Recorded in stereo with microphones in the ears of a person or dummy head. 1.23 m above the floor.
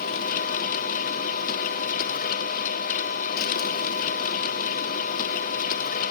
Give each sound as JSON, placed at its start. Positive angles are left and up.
{"t": 0.0, "sound": "a machine running", "side_deg": 45, "distance_m": 1.4}